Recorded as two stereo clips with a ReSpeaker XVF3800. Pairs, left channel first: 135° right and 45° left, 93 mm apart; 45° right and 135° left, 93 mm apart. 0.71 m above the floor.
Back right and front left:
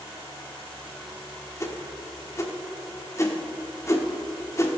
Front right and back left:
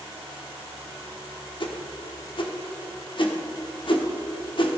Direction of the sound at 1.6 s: 75° right.